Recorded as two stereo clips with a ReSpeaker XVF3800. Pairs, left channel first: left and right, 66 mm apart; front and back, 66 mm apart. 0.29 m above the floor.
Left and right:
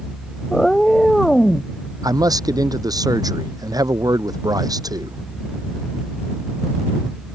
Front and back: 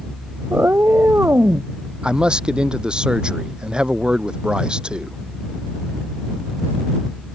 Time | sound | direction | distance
0.5 | a cat meowing | 170° left | ?
2.0 | a man speaking | 100° right | ?